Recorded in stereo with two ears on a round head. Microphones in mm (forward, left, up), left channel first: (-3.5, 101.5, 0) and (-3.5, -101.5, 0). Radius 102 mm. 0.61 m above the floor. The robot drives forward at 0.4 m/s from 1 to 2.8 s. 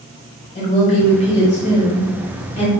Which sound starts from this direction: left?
A woman speaking, at 0.6 s.